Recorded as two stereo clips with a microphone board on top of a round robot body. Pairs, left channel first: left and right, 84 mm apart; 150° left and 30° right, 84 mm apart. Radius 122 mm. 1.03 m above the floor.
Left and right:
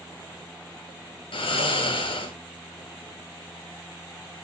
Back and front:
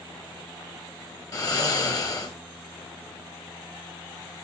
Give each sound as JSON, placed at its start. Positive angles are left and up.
{"t": 1.3, "sound": "snoring", "azimuth_deg": 100, "distance_m": 0.9}